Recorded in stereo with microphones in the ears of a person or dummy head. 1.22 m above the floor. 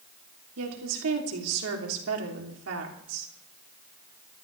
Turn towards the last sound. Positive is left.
turn(degrees=-85)